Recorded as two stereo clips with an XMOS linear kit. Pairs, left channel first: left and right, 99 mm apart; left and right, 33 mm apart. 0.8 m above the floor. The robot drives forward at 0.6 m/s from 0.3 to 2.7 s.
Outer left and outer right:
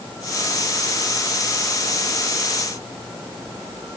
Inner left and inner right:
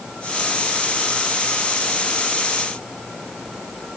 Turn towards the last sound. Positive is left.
No sound to turn to.